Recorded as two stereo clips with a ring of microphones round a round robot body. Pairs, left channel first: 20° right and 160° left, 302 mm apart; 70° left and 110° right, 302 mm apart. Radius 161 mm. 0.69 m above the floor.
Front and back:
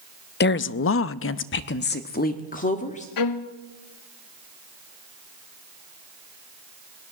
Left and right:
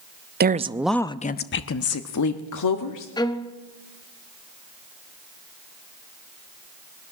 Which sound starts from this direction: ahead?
A violin, at 3.2 s.